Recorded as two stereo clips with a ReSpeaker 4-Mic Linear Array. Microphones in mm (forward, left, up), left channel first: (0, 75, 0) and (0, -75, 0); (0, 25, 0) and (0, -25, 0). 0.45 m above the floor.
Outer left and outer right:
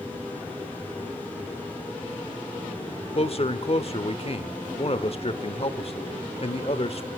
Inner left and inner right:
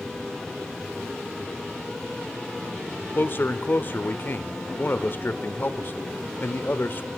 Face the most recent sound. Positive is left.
turn(degrees=45)  # may be behind; listen again after turning